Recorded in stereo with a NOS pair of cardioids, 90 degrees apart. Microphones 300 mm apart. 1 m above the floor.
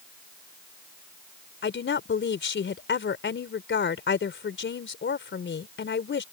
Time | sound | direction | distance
1.6 | a woman speaking | 40° left | ?